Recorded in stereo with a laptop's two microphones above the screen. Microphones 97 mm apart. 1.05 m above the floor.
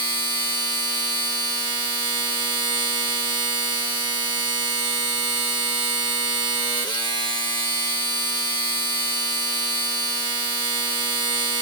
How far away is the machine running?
About 1.1 m.